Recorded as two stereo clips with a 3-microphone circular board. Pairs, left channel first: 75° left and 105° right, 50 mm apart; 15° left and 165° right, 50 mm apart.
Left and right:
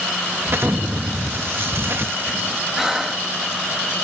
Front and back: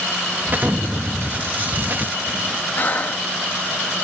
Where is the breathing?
25° right.